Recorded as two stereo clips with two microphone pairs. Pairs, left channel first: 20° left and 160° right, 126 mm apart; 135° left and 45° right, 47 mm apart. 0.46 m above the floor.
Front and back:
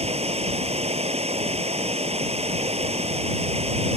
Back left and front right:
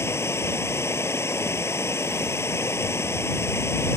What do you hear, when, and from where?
0.0 s running water: 165° left